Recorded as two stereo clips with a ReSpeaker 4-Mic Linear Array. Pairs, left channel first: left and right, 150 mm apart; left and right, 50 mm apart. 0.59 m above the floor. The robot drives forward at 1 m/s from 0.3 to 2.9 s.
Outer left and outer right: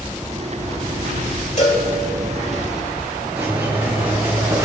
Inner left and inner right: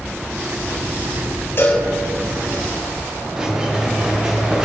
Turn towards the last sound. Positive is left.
turn(degrees=-20)  # may be behind; listen again after turning